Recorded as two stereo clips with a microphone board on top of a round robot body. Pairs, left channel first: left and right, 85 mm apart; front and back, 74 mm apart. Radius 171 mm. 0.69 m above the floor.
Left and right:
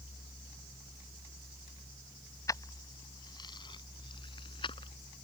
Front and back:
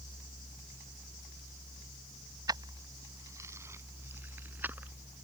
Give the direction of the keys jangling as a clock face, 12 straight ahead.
7 o'clock.